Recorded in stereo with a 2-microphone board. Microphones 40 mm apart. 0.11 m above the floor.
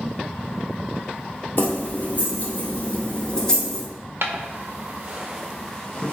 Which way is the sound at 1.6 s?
50° left (ahead or behind).